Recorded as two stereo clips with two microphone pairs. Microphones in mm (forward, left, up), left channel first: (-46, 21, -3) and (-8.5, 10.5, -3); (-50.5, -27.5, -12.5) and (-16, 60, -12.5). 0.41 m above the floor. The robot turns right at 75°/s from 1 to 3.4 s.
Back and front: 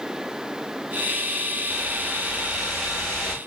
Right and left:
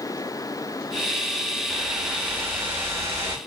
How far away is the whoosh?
About 1.3 m.